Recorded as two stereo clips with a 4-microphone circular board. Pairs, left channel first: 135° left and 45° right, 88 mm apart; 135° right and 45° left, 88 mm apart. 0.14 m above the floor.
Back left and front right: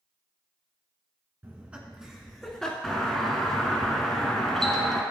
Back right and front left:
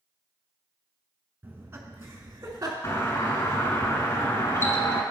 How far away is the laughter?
About 1.6 m.